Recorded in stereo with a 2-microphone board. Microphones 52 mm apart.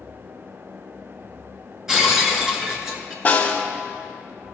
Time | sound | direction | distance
1.9 | breaking glass | 10° right (ahead or behind) | 1.3 m
3.2 | a snare drum | 30° left (ahead or behind) | 1.4 m